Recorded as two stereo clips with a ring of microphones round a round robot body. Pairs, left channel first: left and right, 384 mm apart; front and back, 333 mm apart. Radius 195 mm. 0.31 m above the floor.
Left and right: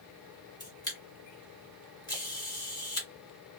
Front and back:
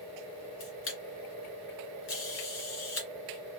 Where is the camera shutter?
15° left, 1.9 m.